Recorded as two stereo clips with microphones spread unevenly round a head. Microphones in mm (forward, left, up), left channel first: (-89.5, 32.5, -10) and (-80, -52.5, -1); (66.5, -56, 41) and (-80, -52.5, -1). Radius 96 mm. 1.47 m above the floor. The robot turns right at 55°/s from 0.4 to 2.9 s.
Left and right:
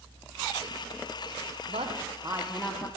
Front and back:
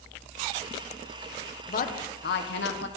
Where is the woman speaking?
40° right, 1.2 m; by 2.9 s 25° left, 1.2 m.